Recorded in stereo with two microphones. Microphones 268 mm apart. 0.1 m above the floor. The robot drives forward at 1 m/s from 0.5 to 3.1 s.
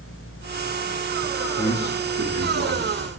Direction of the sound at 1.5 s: 80° left.